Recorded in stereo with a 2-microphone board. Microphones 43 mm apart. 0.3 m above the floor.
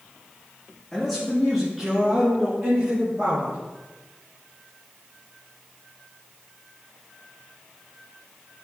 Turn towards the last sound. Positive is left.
turn(degrees=-30)  # may be behind; listen again after turning